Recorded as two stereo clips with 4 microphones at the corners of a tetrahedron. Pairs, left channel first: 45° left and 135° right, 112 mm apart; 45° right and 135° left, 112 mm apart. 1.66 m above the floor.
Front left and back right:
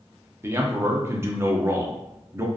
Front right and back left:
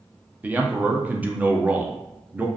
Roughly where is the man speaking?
Behind.